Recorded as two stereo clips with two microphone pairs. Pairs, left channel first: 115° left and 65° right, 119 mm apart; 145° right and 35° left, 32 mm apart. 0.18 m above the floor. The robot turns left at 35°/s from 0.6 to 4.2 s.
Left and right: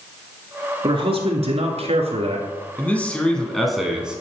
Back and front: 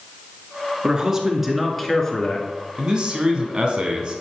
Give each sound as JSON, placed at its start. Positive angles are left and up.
{"t": 0.8, "sound": "a man speaking", "azimuth_deg": -25, "distance_m": 2.0}
{"t": 2.8, "sound": "a man speaking", "azimuth_deg": 55, "distance_m": 1.3}